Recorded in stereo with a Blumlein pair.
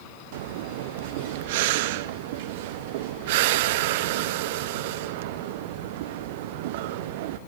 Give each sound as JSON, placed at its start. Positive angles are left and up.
{"t": 0.3, "sound": "breathing", "azimuth_deg": -50, "distance_m": 0.5}